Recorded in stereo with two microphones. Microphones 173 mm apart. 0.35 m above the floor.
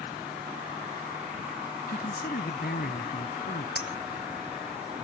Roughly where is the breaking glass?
Left.